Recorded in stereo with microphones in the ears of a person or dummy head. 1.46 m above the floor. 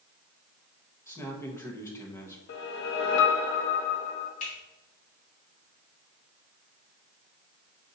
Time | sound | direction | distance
1.1 | a man speaking | 15° left (ahead or behind) | 0.9 m
2.5 | a whoosh | 60° left (ahead or behind) | 0.7 m
4.4 | a finger snap | 35° left (ahead or behind) | 2.5 m